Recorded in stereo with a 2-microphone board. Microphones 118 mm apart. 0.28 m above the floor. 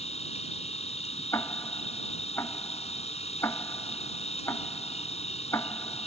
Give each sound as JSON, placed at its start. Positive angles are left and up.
{"t": 0.0, "sound": "an insect", "side_deg": 65}
{"t": 1.3, "sound": "ticking", "side_deg": 25}